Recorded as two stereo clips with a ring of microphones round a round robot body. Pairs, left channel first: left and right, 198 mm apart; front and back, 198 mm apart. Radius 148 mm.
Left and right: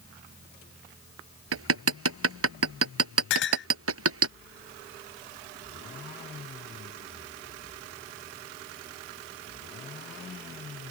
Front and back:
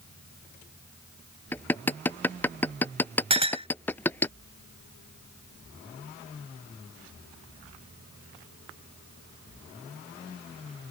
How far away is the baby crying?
I don't hear a baby crying.